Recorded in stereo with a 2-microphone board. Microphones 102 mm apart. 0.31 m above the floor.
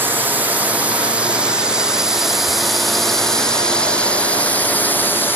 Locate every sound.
0.0 s a drone: 20° right (ahead or behind); by 5.4 s 20° left (ahead or behind)